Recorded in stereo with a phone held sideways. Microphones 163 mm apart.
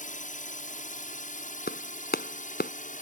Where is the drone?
55° left (ahead or behind).